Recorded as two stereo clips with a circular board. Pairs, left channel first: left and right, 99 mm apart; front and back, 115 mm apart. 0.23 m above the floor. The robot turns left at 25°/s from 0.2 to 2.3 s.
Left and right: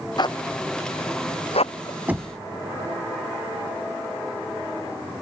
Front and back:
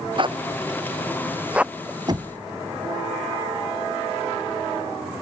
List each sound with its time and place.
0.2 s a zipper: 135° left; by 2.0 s 90° left
2.1 s knocking: 155° right; by 2.4 s 160° right